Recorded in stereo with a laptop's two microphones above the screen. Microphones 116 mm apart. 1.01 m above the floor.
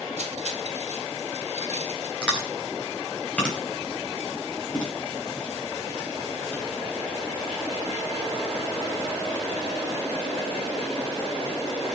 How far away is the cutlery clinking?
About 2.5 m.